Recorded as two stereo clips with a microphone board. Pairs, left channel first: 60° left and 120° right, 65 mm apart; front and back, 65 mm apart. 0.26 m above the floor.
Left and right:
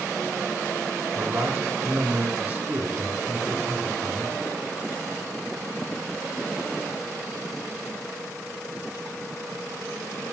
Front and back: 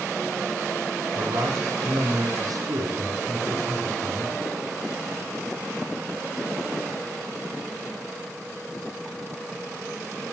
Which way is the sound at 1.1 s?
170° left.